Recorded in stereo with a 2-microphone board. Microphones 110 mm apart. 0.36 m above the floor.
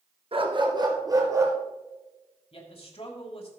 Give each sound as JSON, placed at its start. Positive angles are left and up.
{"t": 0.3, "sound": "a dog barking", "side_deg": -50, "distance_m": 1.5}
{"t": 2.5, "sound": "a man speaking", "side_deg": 55, "distance_m": 2.5}